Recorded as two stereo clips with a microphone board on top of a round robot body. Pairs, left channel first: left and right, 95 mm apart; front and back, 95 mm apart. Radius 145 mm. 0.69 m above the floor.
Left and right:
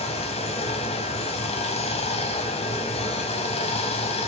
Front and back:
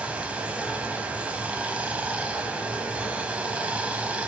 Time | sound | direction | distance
0.0 | running water | 100° left | 1.5 m